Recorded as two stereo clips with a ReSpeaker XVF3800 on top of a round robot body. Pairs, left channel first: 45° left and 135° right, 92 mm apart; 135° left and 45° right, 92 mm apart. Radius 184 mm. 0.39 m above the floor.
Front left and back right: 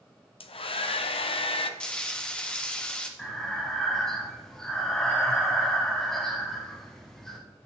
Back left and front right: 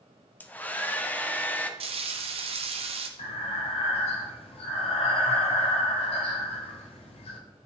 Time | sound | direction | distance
0.4 | a hair dryer | 65° left | 0.7 m
1.8 | frying | 35° right | 0.6 m
3.2 | breathing | 130° left | 0.6 m